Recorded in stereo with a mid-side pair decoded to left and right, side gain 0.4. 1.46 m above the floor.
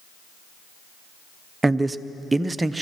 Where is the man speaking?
20° right, 0.6 m.